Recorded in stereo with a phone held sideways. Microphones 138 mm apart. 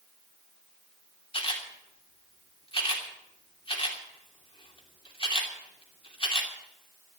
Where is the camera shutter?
45° left (ahead or behind), 3 m.